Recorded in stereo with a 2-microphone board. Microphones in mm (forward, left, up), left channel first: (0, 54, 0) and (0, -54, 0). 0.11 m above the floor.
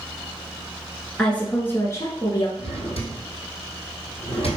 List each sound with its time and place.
1.2 s a woman speaking: 10° left (ahead or behind), 1.4 m; by 2.5 s 40° left (ahead or behind), 1.6 m
2.6 s a drawer: 70° left (ahead or behind), 1.8 m